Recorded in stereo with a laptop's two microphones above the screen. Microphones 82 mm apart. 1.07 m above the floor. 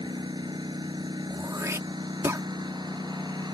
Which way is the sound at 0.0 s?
60° right (ahead or behind).